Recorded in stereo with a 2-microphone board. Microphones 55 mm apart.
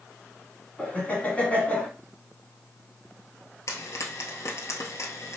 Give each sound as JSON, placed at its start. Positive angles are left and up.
{"t": 0.8, "sound": "laughter", "side_deg": 25, "distance_m": 1.2}
{"t": 3.7, "sound": "frying", "side_deg": 70, "distance_m": 1.2}